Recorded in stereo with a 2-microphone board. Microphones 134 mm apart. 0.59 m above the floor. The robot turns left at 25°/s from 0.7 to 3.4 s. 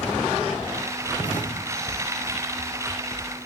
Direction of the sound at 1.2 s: 75° left (ahead or behind).